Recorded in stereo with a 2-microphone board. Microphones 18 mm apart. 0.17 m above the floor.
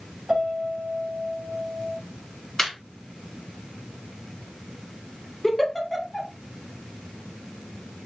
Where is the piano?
35° right (ahead or behind), 1.5 m.